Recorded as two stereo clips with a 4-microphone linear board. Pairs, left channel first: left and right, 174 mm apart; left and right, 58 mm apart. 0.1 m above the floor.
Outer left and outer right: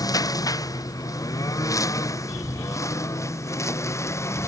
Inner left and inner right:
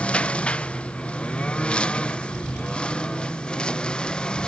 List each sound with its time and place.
0.0 s a lawn mower: 20° left (ahead or behind); by 4.5 s 15° left (ahead or behind)